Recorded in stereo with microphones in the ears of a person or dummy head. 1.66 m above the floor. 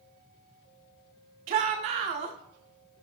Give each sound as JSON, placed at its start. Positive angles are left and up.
{"t": 1.5, "sound": "a shout", "side_deg": -40, "distance_m": 1.0}